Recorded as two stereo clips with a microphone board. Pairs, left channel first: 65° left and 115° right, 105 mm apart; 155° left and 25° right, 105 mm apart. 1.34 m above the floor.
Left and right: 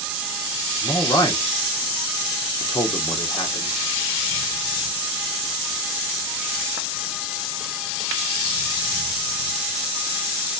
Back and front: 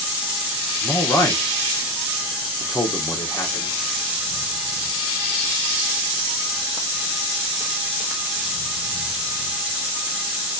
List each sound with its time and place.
0.8 s a man speaking: 110° left, 0.8 m